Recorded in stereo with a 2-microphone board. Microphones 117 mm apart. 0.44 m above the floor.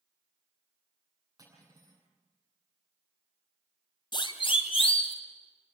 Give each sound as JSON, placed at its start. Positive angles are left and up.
{"t": 1.4, "sound": "cutlery clinking", "side_deg": -30, "distance_m": 9.0}
{"t": 4.1, "sound": "a siren", "side_deg": 40, "distance_m": 2.0}